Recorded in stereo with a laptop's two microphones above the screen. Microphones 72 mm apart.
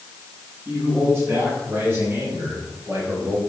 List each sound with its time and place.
0.7 s a man speaking: 30° right (ahead or behind), 6 m; by 3.4 s 45° right (ahead or behind), 3.5 m